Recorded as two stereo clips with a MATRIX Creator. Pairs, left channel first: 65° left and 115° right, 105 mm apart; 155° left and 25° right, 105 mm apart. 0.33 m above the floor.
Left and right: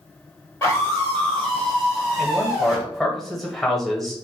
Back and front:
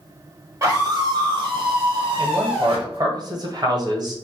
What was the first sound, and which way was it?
A scream, 10° left.